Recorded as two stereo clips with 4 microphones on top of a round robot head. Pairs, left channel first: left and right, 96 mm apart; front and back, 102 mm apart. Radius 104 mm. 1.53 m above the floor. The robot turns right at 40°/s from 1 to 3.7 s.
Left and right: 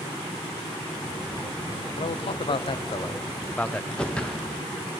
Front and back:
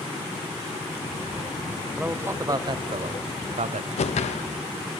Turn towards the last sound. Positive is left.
turn(degrees=10)